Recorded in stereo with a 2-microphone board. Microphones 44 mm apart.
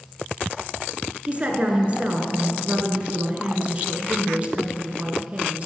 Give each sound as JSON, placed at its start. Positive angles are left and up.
{"t": 1.3, "sound": "a woman speaking", "side_deg": -30, "distance_m": 1.5}